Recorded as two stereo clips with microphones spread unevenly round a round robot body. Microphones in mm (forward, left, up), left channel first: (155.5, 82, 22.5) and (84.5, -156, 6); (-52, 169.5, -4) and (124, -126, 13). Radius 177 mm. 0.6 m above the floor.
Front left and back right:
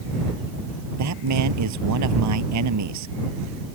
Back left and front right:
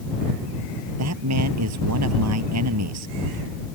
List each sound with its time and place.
1.0 s a man speaking: 110° right